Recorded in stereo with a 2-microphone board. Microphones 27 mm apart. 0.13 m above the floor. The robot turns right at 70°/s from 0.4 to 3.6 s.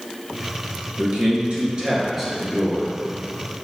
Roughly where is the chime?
I don't hear a chime.